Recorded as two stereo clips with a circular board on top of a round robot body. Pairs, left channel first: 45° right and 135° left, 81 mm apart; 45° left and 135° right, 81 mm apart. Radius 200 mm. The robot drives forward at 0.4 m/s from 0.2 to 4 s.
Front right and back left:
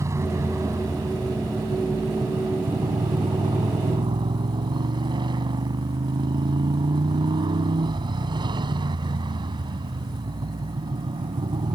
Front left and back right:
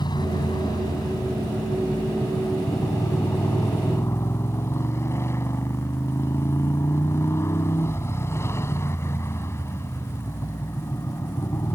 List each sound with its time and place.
0.0 s a motorcycle: 80° left; by 11.8 s 105° left